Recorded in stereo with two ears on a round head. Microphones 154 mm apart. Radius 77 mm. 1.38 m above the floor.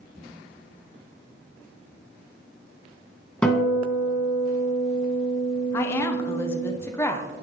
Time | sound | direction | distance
3.4 | a guitar | 10° left (ahead or behind) | 1.9 m
5.7 | a woman speaking | 15° left (ahead or behind) | 0.8 m